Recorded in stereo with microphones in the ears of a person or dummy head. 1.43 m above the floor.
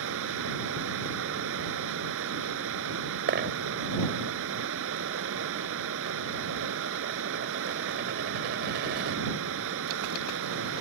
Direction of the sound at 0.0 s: 75° right (ahead or behind).